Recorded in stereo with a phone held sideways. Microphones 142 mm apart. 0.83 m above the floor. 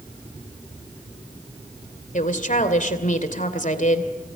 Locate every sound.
2.1 s a woman speaking: 65° left (ahead or behind), 2.5 m